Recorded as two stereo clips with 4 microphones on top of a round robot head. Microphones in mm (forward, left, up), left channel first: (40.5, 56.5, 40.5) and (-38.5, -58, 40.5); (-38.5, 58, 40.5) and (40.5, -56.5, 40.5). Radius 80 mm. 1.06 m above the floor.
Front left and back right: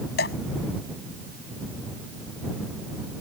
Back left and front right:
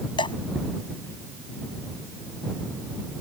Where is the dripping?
65° left.